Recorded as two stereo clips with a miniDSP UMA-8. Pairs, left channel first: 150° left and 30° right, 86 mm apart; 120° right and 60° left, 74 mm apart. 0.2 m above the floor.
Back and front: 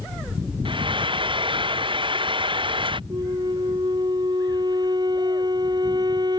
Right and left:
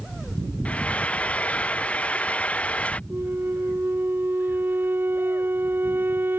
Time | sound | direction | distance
0.7 | frying | 45° right | ?
3.1 | a flute | straight ahead | ?